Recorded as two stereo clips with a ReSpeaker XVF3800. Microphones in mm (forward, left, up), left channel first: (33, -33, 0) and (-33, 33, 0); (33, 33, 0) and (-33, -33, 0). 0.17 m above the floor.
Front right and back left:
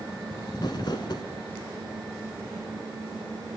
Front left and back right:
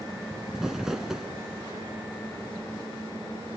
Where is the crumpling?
50° right, 0.9 m.